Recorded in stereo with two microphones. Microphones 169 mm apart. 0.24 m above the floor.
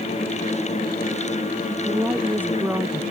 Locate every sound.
1.7 s a woman speaking: 10° right (ahead or behind)